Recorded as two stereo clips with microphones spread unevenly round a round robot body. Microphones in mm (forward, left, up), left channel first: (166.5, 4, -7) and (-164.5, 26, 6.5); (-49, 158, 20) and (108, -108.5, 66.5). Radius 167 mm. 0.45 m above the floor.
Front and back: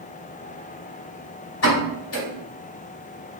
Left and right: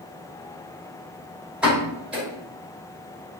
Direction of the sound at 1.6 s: 30° left.